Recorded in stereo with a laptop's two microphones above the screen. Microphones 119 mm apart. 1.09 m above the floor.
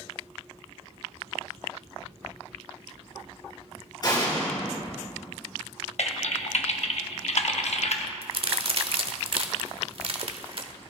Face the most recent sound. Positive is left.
turn(degrees=-50)  # may be behind; listen again after turning